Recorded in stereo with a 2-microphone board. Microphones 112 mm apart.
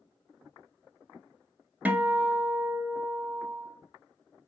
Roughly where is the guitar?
Centre.